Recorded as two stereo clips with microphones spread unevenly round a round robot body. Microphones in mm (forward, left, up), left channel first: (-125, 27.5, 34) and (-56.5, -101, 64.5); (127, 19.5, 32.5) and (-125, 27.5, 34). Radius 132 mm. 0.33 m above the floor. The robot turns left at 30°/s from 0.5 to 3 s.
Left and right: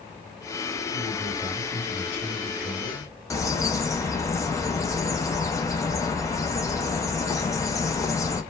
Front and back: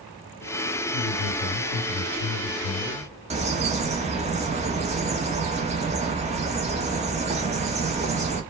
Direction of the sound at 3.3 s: 135° left.